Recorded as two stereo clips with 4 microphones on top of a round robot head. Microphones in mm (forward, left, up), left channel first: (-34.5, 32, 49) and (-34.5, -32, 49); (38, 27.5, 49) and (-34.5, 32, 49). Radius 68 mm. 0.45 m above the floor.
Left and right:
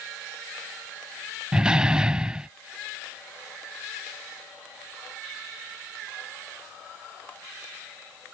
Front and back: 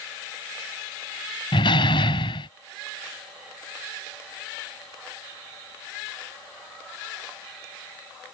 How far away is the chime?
No chime in this recording.